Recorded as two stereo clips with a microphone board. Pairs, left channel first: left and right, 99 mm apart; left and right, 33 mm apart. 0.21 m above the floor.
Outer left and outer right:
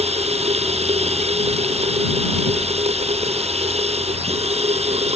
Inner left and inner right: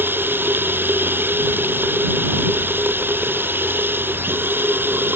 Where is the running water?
75° right (ahead or behind).